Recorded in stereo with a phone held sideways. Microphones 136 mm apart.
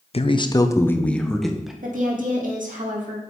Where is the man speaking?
45° left (ahead or behind), 0.6 m; by 1.7 s 5° right (ahead or behind), 1.1 m.